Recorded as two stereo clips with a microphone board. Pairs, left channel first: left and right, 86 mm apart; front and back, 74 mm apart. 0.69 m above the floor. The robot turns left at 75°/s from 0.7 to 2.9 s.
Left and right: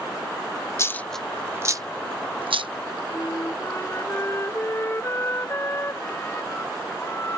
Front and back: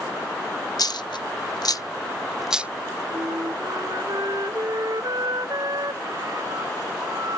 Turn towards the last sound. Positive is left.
turn(degrees=150)